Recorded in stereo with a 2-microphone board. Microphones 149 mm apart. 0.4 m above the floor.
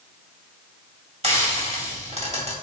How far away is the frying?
About 2.5 m.